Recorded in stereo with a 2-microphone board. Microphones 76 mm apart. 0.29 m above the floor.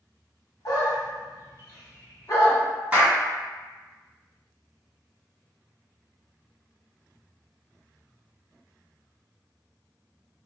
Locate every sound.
0.7 s a dog barking: 55° left (ahead or behind), 0.9 m
2.9 s a clap: 20° right (ahead or behind), 1.8 m